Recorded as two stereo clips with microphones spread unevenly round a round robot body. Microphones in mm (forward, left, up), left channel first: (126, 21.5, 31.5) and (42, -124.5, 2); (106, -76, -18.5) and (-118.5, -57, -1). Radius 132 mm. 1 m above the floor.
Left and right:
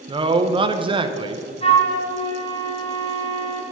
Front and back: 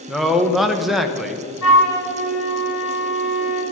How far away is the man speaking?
About 0.8 m.